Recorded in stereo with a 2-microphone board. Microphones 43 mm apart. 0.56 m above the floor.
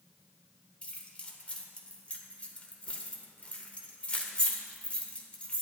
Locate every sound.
0.8 s keys jangling: 25° left (ahead or behind), 1.2 m